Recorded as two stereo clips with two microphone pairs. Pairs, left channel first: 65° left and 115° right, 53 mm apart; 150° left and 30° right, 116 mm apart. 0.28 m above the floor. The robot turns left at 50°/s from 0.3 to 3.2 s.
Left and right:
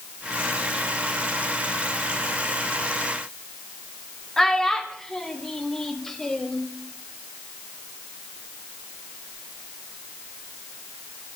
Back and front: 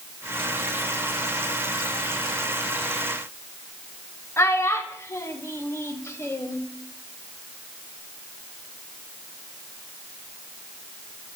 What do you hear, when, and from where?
4.4 s a child speaking: 140° left, 0.6 m